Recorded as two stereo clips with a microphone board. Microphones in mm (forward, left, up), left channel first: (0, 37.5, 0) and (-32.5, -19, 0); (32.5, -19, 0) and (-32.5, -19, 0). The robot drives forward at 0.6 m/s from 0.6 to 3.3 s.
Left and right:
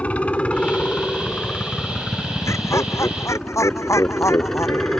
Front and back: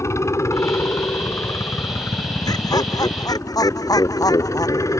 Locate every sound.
0.0 s a helicopter: straight ahead; by 5.0 s 25° right
2.5 s laughter: 15° left; by 5.0 s 20° left